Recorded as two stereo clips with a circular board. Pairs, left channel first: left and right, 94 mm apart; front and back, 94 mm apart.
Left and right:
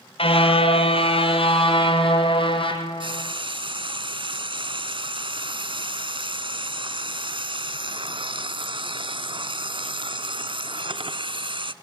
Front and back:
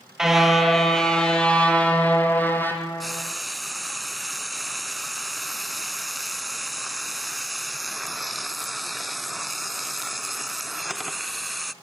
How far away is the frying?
About 0.9 m.